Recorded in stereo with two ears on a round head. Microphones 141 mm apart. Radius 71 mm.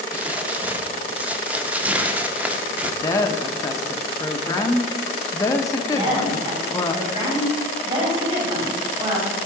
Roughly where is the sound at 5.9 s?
Right.